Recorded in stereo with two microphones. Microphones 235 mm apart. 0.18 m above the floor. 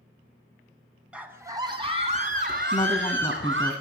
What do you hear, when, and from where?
1.1 s a scream: 5° right (ahead or behind), 1.2 m; by 3.7 s 55° right (ahead or behind), 1.8 m
2.7 s a woman speaking: 20° left (ahead or behind), 1.2 m